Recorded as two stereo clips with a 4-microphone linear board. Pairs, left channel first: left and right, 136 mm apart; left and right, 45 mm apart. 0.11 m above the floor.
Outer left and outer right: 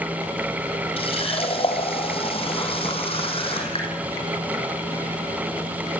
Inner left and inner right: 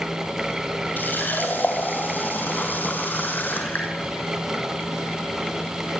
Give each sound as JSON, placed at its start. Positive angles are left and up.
{"t": 1.0, "sound": "a running tap", "side_deg": 45, "distance_m": 3.5}